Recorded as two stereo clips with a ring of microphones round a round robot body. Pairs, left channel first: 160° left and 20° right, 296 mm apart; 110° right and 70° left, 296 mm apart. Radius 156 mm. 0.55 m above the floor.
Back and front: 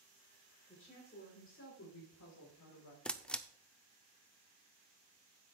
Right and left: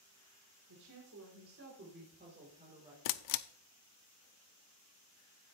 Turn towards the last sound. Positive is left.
turn(degrees=-115)